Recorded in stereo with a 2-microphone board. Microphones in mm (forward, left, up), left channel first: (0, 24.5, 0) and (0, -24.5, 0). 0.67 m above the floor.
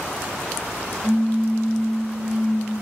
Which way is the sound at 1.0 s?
25° right (ahead or behind).